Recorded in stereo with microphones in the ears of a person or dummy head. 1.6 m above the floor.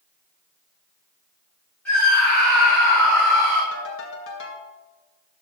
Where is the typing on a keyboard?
No typing on a keyboard in this recording.